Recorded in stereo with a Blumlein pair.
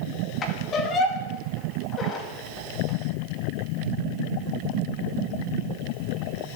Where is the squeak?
25° left, 2.0 m.